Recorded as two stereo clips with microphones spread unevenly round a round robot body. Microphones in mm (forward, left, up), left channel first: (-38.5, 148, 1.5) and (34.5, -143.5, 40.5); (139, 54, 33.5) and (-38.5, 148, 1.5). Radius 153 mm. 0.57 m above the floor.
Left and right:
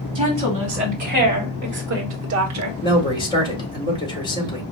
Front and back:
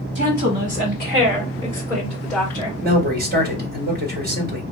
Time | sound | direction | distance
0.1 | a woman speaking | 150° right | 3.5 m
2.8 | a man speaking | 170° left | 1.7 m